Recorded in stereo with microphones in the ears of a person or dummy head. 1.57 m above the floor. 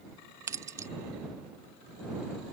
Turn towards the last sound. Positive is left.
turn(degrees=-10)  # may be behind; listen again after turning